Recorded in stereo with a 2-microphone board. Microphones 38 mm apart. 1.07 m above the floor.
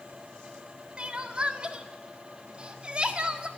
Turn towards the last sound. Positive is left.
turn(degrees=-35)  # may be behind; listen again after turning